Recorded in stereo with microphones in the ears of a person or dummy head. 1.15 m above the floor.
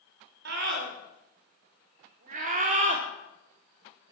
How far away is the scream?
About 5 m.